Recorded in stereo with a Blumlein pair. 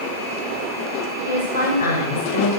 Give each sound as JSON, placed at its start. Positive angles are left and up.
{"t": 1.2, "sound": "a woman speaking", "azimuth_deg": 65, "distance_m": 6.0}